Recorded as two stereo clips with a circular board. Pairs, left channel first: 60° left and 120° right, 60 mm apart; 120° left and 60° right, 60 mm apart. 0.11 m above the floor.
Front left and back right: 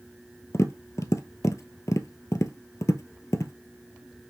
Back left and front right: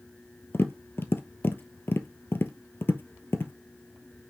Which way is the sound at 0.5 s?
75° left.